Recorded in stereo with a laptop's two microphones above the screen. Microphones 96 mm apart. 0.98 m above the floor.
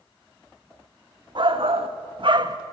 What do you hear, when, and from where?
1.4 s a shout: 55° right (ahead or behind), 1.5 m; by 2.6 s 40° right (ahead or behind), 1.3 m